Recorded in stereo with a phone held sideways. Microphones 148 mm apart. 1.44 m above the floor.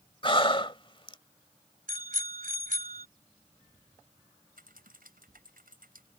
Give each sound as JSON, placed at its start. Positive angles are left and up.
{"t": 0.2, "sound": "breathing", "side_deg": 35}
{"t": 1.9, "sound": "a bicycle bell", "side_deg": -70}
{"t": 4.6, "sound": "typing on a keyboard", "side_deg": -85}